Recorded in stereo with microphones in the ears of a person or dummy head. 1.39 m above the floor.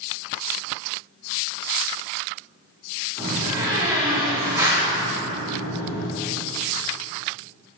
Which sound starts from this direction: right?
A door slam, at 3.2 s.